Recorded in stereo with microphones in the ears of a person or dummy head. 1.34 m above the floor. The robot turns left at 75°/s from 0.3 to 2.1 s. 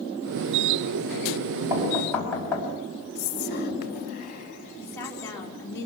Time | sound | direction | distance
1.7 | knocking | 165° right | 4.5 m
3.1 | whispering | 50° left (ahead or behind) | 2.5 m
4.8 | a woman speaking | 15° left (ahead or behind) | 4 m